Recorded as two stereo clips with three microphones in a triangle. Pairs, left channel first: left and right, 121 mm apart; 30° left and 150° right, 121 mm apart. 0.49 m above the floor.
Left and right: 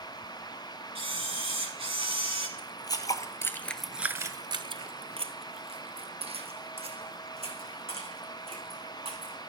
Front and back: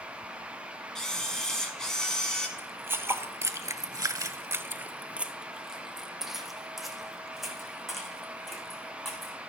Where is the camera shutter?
55° right, 1.8 m.